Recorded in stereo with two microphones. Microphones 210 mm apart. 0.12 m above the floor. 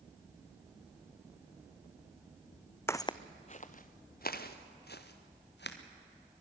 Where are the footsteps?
10° left (ahead or behind), 0.5 m; by 5.8 s 55° left (ahead or behind), 2 m.